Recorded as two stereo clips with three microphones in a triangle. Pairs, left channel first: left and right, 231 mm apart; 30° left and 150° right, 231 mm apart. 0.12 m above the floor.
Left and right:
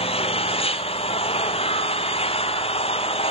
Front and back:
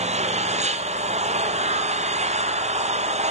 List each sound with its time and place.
0.0 s an engine running: 155° left, 0.9 m